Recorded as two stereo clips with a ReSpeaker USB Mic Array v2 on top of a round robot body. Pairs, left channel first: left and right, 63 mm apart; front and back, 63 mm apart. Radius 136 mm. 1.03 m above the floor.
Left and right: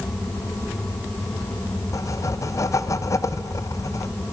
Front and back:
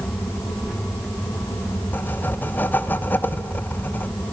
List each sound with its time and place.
1.9 s writing: 60° left, 1.3 m